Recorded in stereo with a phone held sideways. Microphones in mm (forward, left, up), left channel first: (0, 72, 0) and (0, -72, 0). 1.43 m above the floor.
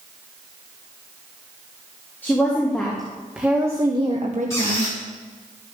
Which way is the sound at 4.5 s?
20° left (ahead or behind).